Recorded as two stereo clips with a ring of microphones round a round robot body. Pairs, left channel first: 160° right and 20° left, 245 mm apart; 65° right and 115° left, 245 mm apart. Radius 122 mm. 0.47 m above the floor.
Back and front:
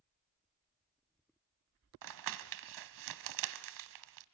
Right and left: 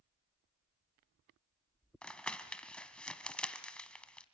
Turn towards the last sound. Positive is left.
turn(degrees=20)